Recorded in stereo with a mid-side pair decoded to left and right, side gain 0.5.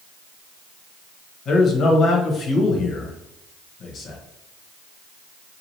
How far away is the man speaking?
About 1.1 m.